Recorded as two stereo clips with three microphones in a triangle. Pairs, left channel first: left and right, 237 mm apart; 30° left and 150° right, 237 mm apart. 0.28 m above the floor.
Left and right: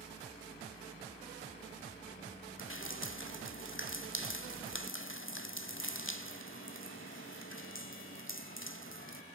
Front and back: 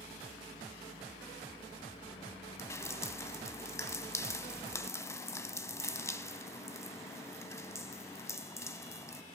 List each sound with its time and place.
2.6 s dripping: 105° left, 1.0 m